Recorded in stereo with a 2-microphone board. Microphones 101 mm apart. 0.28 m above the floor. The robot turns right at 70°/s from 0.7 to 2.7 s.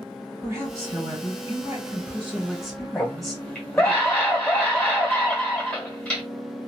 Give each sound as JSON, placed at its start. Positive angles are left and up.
{"t": 0.4, "sound": "a woman speaking", "azimuth_deg": -130, "distance_m": 1.7}
{"t": 3.0, "sound": "a scream", "side_deg": 15, "distance_m": 1.5}